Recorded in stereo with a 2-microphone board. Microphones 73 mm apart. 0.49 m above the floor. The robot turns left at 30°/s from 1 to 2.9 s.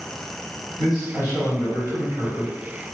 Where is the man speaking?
95° left, 1.9 m; by 2.5 s 50° left, 1.9 m.